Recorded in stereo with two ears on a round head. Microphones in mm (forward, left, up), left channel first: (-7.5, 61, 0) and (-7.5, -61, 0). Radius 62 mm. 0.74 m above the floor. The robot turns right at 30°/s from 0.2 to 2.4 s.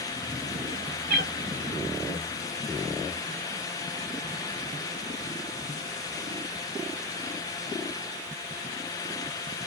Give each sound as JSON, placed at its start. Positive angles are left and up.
{"t": 1.1, "sound": "a cat meowing", "side_deg": -80, "distance_m": 2.0}